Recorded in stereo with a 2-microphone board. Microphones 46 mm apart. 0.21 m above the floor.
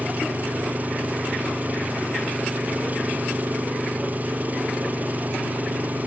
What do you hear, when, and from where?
0.0 s an engine running: 40° right (ahead or behind)